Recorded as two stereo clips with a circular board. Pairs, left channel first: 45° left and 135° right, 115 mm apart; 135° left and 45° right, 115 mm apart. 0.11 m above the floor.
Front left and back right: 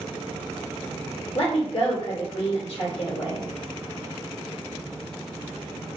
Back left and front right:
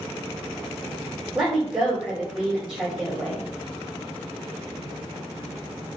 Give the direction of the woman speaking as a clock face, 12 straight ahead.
11 o'clock.